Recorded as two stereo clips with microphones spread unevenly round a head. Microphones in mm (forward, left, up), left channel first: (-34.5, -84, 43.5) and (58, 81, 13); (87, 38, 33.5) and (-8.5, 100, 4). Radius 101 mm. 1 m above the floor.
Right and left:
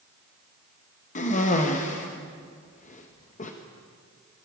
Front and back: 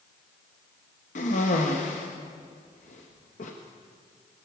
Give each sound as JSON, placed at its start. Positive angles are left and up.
{"t": 1.1, "sound": "a cough", "azimuth_deg": -65, "distance_m": 1.5}